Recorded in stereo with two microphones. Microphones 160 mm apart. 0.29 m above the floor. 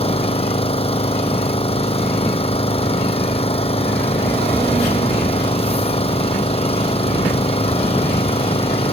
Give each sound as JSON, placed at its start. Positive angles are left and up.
{"t": 0.0, "sound": "an engine running", "side_deg": 40}